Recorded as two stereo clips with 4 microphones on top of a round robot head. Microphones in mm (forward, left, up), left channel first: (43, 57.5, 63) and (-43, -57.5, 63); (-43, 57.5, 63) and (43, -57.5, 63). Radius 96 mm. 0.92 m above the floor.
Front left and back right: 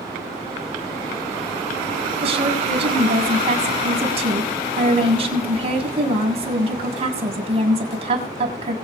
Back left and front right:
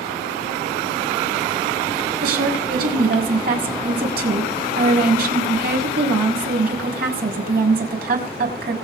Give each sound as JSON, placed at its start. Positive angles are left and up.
{"t": 2.2, "sound": "a woman speaking", "azimuth_deg": -75, "distance_m": 6.5}